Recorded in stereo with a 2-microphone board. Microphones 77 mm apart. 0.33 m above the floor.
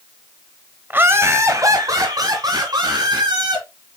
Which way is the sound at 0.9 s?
25° right (ahead or behind).